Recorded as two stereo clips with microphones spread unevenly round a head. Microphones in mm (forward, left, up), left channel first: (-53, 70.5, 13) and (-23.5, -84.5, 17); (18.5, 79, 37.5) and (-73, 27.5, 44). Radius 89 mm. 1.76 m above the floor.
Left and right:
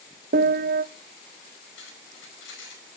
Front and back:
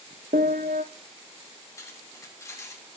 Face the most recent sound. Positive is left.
turn(degrees=95)